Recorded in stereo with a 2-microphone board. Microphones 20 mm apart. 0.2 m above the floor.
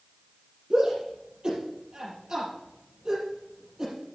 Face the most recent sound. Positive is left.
turn(degrees=-35)  # may be behind; listen again after turning